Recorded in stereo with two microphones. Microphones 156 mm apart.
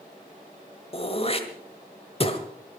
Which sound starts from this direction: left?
Throat clearing, at 0.9 s.